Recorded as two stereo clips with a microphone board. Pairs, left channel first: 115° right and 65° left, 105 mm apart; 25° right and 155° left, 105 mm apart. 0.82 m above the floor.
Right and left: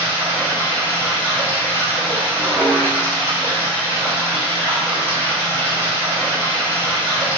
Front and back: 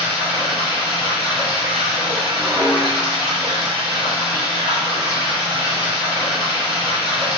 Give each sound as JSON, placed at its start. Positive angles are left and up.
{"t": 0.0, "sound": "running water", "azimuth_deg": 180, "distance_m": 1.1}
{"t": 2.3, "sound": "dishes clattering", "azimuth_deg": 135, "distance_m": 1.5}